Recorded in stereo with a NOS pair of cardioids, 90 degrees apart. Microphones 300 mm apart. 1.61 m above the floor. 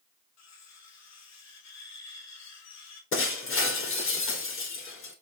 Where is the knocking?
I don't hear knocking.